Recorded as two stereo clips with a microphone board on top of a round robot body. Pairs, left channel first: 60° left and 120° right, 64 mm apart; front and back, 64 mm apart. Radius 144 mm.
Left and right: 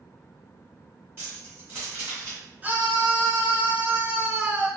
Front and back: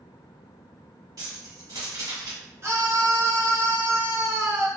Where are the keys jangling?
175° right, 1.9 m.